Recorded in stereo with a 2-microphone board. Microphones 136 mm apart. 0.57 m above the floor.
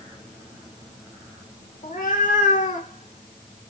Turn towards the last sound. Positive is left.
turn(degrees=40)  # may be behind; listen again after turning